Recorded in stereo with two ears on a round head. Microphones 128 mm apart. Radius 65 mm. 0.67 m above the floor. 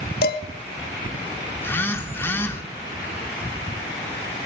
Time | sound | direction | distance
0.2 | dishes clattering | 70° left (ahead or behind) | 1.5 m
1.6 | a phone buzzing | 15° left (ahead or behind) | 1.5 m